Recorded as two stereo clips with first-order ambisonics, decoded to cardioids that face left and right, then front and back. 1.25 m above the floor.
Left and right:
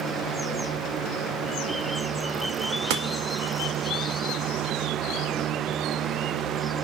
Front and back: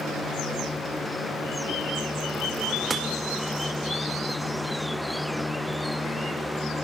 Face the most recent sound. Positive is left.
turn(degrees=-100)